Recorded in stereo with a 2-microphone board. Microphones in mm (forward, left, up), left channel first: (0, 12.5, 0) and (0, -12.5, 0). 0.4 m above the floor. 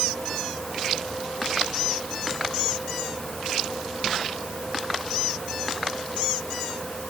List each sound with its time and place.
Only background noise.